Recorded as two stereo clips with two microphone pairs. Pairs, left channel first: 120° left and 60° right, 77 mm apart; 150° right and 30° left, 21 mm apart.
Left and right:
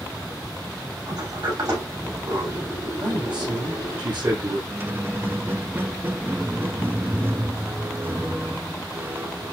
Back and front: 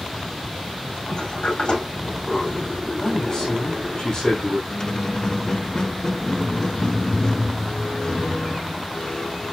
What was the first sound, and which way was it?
A sliding door, 95° right.